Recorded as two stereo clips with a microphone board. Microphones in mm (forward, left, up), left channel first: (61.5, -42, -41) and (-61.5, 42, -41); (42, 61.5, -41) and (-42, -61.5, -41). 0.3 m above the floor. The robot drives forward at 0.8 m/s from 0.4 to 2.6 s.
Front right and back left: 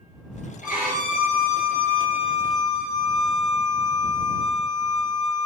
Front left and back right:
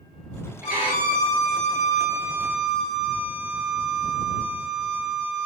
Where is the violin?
45° right, 2.0 m; by 5.5 s 100° right, 1.4 m.